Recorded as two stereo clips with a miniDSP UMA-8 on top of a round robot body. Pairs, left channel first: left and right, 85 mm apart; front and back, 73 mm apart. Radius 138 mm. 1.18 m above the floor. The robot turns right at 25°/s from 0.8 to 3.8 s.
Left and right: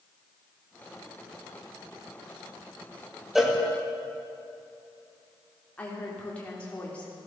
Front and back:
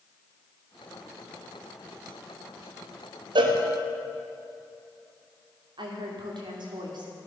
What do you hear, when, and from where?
3.4 s a cowbell: straight behind, 1.7 m; by 3.6 s 170° right, 1.7 m
5.8 s a woman speaking: 165° left, 3 m